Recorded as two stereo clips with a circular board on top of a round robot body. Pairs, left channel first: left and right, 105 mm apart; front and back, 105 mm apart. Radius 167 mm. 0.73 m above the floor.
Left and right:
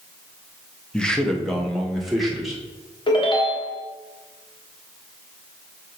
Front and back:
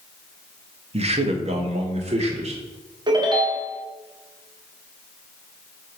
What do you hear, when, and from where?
0.9 s a man speaking: 170° left, 1.1 m; by 2.6 s straight behind, 2 m
3.1 s a ringtone: 130° left, 1.7 m